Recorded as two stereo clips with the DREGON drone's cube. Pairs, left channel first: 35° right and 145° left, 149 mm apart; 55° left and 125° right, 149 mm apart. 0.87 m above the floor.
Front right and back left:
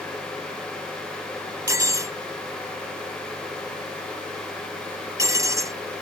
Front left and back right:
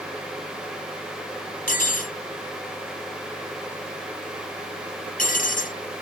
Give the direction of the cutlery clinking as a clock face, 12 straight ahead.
9 o'clock.